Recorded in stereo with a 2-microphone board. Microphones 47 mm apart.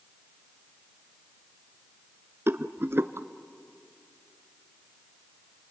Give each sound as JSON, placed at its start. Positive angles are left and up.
{"t": 2.5, "sound": "a rattle", "side_deg": -60, "distance_m": 0.7}